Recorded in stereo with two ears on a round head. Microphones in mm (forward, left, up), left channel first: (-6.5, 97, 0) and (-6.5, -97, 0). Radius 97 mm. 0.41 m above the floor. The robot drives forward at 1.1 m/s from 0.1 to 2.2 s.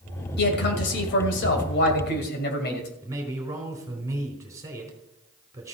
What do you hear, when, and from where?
0.4 s a man speaking: 50° left (ahead or behind), 2.5 m
3.0 s a man speaking: 15° right (ahead or behind), 4 m